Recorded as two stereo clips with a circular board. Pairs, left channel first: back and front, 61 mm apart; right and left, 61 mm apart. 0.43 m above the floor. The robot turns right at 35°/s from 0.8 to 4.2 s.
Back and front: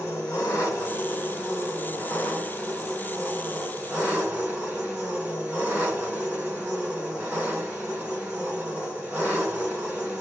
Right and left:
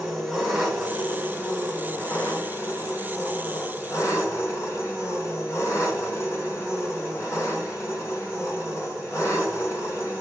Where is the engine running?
Straight behind, 3 m; by 10.2 s 65° right, 3 m.